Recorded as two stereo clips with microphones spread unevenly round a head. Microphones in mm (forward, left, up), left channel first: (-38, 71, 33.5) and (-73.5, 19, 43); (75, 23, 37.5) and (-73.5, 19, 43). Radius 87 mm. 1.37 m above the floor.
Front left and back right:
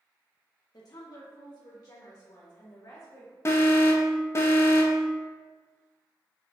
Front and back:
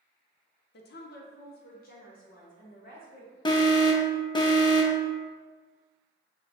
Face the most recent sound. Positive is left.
turn(degrees=50)